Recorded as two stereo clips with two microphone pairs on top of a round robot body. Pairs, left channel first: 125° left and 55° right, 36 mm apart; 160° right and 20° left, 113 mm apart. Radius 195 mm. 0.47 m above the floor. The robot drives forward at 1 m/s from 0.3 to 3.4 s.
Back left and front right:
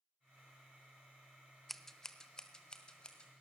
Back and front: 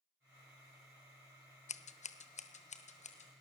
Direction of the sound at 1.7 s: 150° right.